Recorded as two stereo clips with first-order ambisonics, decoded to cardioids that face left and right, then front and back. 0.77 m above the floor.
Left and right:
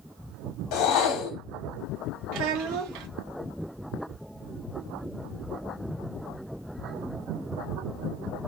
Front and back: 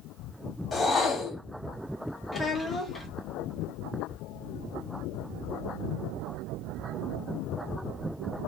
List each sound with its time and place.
0.7 s a whoosh: 70° left, 1.0 m
2.3 s a child speaking: 75° right, 0.7 m